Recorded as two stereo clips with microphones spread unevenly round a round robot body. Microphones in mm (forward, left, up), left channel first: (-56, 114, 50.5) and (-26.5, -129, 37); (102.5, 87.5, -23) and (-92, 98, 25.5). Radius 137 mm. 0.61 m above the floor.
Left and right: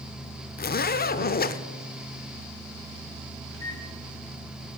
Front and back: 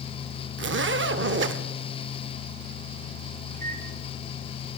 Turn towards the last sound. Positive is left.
turn(degrees=130)